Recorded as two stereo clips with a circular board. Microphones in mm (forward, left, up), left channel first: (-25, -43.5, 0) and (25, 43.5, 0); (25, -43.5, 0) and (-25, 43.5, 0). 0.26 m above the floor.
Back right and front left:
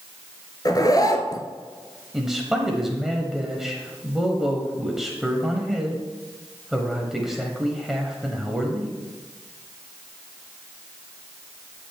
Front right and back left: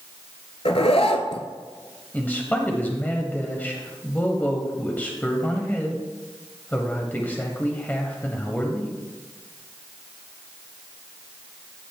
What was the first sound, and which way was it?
A zipper, 70° right.